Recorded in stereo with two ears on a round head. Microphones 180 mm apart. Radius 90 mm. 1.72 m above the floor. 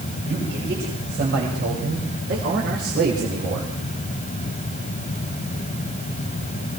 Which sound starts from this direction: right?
A man speaking, at 0.2 s.